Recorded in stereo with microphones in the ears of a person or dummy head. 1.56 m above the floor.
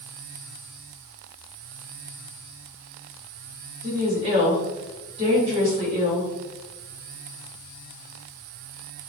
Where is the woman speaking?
30° right (ahead or behind), 1.6 m.